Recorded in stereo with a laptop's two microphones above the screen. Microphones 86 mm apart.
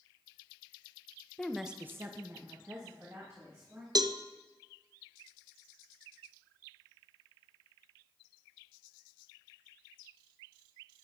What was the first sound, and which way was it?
A woman speaking, 5° left (ahead or behind).